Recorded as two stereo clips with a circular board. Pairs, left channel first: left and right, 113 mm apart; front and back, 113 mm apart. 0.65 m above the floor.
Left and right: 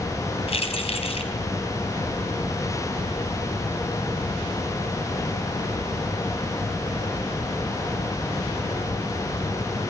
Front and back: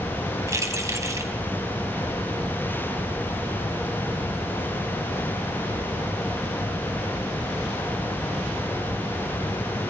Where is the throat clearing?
No throat clearing in this recording.